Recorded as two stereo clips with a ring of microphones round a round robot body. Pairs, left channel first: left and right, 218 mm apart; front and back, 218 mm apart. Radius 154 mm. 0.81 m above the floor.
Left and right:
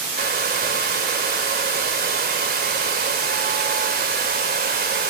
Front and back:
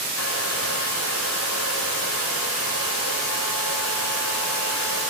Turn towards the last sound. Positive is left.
turn(degrees=-45)